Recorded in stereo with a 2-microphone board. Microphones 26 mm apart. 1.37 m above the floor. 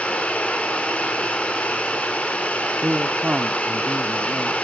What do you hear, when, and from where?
0.0 s running water: 65° left (ahead or behind), 4 m
2.8 s a man speaking: 60° right (ahead or behind), 0.8 m